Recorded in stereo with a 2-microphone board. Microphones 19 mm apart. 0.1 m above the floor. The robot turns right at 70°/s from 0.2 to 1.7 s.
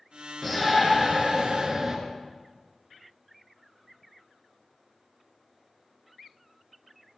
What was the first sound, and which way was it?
A shout, 10° left (ahead or behind).